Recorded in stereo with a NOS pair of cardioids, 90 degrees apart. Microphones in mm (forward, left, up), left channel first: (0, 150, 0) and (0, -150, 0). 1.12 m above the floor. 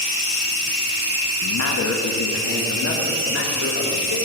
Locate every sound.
1.4 s a man speaking: 65° left, 1.4 m; by 4.2 s 40° left, 3.5 m